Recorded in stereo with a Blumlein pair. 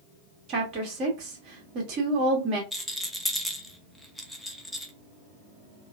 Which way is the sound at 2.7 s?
Straight ahead.